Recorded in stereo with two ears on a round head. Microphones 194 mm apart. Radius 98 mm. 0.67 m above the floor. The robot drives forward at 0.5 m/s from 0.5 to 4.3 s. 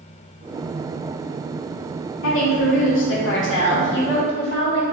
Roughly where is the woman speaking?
Left.